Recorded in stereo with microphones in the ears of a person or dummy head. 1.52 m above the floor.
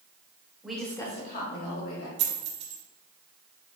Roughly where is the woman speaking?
Centre.